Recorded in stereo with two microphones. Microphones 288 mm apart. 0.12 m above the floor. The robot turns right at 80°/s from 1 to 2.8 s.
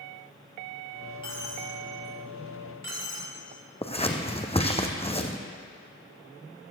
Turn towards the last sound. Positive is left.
turn(degrees=20)  # may be behind; listen again after turning